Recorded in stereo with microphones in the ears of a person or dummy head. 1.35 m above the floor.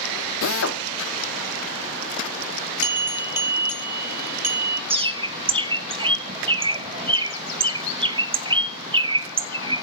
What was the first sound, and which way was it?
A drill, 70° left (ahead or behind).